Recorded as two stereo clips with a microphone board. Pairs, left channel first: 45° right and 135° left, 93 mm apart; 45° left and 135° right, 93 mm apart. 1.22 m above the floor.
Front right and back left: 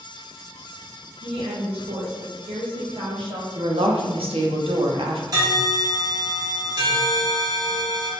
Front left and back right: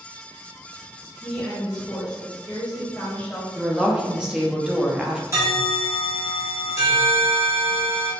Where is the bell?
175° left, 1.1 m.